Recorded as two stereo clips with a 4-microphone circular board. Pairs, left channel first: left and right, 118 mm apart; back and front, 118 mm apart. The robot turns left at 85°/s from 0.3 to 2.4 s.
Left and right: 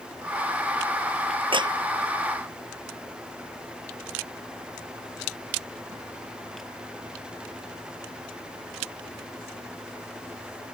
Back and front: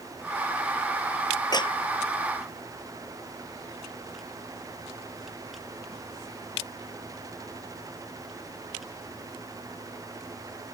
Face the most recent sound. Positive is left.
turn(degrees=160)